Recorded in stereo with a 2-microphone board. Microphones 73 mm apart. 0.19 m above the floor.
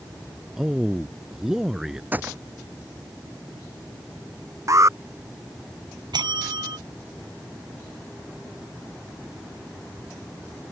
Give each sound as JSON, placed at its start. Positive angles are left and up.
{"t": 0.6, "sound": "a man speaking", "side_deg": -5}
{"t": 2.1, "sound": "a gunshot", "side_deg": -25}
{"t": 4.7, "sound": "an alarm", "side_deg": -45}
{"t": 6.1, "sound": "a bell", "side_deg": -80}